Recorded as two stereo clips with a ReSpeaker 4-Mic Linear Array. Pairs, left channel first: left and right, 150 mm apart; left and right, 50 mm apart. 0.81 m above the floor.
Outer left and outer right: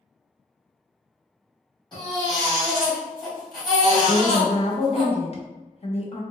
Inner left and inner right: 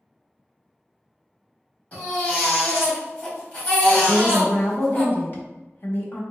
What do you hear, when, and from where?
1.9 s a baby crying: 30° left (ahead or behind), 1.7 m
4.0 s a woman speaking: 45° left (ahead or behind), 0.9 m